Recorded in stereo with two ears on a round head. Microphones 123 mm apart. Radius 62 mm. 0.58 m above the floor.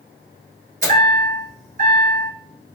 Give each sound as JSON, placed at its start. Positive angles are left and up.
{"t": 0.8, "sound": "a chime", "side_deg": -65, "distance_m": 1.6}